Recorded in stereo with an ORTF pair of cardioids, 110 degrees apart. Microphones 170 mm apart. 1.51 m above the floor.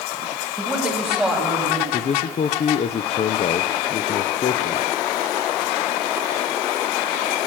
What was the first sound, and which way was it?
A man speaking, 5° right.